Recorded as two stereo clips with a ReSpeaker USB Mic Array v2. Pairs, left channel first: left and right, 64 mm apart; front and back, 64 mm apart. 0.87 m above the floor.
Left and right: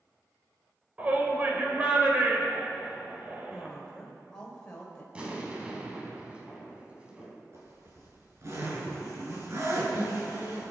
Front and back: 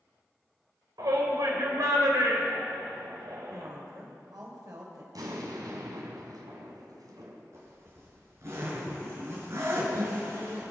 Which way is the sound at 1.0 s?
160° right.